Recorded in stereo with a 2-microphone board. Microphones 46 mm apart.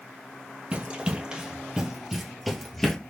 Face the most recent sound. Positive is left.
turn(degrees=10)  # may be behind; listen again after turning